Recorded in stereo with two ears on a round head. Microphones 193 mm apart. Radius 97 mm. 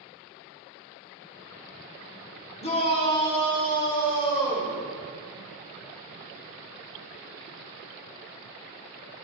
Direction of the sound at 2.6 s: 30° left (ahead or behind).